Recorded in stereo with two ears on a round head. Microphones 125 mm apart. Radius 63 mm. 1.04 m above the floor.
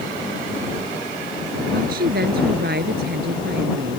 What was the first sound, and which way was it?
A woman speaking, 75° right (ahead or behind).